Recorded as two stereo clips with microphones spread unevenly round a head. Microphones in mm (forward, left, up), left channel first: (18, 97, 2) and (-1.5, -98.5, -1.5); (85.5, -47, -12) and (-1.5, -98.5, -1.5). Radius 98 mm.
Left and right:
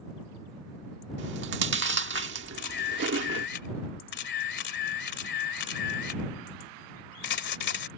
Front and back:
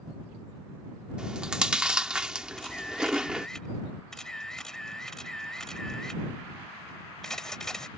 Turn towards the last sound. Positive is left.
turn(degrees=120)